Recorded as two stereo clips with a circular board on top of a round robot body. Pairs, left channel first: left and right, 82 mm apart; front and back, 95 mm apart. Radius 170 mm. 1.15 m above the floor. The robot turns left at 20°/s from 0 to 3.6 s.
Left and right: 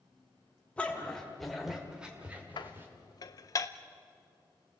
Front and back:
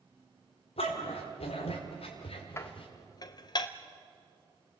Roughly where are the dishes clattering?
Ahead left.